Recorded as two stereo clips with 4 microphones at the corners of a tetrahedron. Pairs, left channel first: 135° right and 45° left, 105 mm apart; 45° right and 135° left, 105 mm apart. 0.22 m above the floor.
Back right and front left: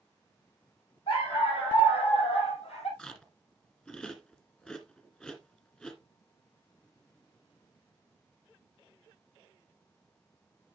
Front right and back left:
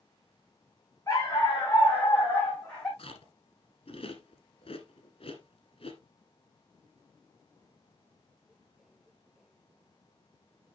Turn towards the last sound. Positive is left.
turn(degrees=-60)